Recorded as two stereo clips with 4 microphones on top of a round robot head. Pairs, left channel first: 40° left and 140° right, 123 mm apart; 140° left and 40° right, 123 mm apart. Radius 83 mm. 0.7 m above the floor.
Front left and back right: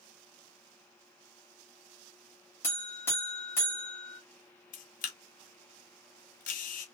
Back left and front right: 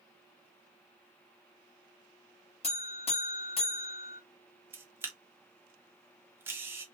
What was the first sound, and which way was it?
A buzzer, 110° left.